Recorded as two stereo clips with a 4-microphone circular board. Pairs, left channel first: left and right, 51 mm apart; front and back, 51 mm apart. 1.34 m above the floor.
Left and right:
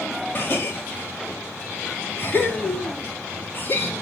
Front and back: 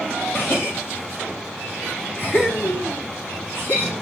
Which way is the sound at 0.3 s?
45° left.